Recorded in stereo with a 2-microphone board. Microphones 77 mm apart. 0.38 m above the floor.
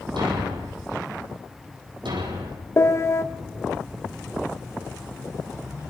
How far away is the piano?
About 1.3 m.